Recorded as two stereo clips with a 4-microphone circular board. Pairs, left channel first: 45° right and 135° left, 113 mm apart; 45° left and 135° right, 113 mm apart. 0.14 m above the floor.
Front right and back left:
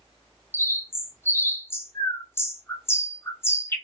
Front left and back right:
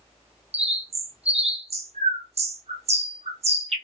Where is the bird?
115° right, 0.6 m.